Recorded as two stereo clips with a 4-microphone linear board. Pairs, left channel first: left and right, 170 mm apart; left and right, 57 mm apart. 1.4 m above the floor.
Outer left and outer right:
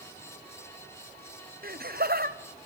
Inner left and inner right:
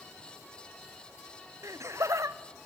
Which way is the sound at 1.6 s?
60° right (ahead or behind).